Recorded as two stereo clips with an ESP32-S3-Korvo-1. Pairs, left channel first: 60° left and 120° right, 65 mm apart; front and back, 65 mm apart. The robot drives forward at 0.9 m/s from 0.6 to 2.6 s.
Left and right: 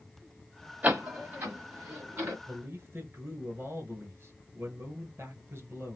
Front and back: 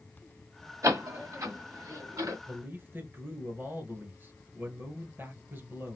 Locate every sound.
0.8 s a door slam: straight behind, 1.5 m
2.5 s a man speaking: 150° right, 1.5 m